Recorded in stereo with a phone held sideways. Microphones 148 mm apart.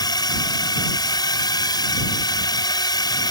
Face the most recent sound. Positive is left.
turn(degrees=30)  # may be behind; listen again after turning